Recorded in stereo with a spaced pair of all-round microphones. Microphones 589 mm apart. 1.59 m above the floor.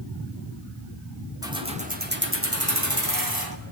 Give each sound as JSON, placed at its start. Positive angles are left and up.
{"t": 1.4, "sound": "keys jangling", "side_deg": -5, "distance_m": 3.0}